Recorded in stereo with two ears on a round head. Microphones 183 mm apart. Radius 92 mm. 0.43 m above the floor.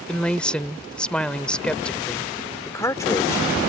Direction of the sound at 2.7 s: 15° left (ahead or behind).